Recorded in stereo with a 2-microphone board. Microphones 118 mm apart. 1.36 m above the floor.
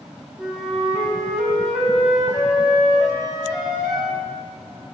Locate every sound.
0.4 s a flute: 10° right (ahead or behind), 4 m